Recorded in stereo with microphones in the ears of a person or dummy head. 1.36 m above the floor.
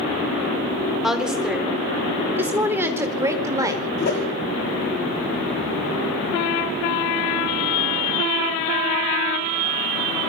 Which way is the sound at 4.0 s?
50° left (ahead or behind).